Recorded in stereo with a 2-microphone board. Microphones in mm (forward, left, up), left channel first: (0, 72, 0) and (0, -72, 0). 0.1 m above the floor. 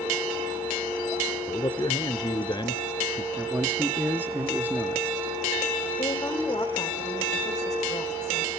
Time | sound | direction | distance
1.5 | a man speaking | 30° left (ahead or behind) | 1.2 m
3.4 | a man speaking | 10° right (ahead or behind) | 1.3 m
6.0 | a woman speaking | 25° left (ahead or behind) | 5.5 m